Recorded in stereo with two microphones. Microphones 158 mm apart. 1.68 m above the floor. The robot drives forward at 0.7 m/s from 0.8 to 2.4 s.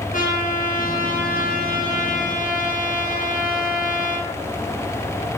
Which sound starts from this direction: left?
A trumpet, at 0.1 s.